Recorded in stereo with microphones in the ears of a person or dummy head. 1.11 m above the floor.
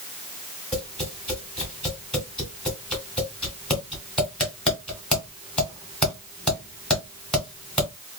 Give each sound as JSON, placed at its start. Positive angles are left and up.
{"t": 0.7, "sound": "tapping", "side_deg": 0, "distance_m": 2.0}